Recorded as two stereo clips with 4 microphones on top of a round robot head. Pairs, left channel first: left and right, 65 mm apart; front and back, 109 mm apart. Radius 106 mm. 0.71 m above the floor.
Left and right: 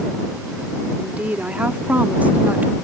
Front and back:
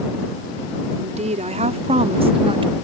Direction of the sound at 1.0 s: 165° right.